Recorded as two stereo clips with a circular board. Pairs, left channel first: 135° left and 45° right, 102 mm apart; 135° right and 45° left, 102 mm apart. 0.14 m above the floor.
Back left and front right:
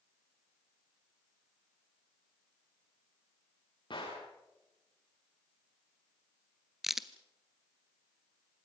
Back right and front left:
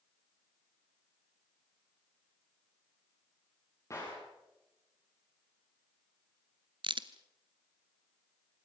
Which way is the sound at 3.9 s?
170° left.